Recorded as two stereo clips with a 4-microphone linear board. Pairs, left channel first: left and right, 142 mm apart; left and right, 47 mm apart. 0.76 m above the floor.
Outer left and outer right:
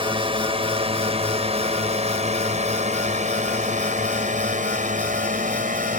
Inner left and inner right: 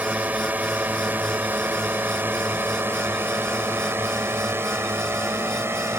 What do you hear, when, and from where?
0.0 s a drone: 35° right (ahead or behind); by 6.0 s 65° right (ahead or behind)